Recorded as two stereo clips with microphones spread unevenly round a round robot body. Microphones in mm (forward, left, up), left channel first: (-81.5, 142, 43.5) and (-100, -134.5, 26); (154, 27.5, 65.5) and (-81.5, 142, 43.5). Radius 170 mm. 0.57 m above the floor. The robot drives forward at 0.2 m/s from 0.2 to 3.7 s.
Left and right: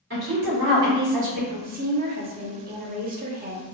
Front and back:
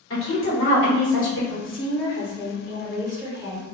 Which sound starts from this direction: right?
A woman speaking, at 1.5 s.